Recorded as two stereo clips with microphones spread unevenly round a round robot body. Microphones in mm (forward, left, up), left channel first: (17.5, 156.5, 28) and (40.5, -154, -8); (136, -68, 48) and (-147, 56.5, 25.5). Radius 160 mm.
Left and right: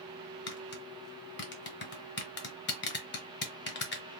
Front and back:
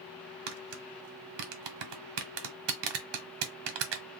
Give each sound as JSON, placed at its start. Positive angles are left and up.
{"t": 0.5, "sound": "tapping", "azimuth_deg": 150, "distance_m": 0.8}